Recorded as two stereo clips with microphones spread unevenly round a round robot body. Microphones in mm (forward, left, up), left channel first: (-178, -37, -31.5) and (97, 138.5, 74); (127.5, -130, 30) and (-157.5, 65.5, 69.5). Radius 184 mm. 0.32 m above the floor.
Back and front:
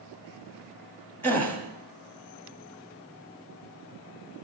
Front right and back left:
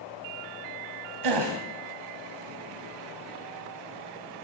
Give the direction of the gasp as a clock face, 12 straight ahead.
7 o'clock.